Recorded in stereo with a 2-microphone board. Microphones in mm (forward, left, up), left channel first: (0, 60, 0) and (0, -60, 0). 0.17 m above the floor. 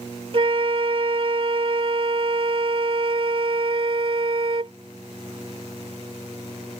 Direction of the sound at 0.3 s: 50° right (ahead or behind).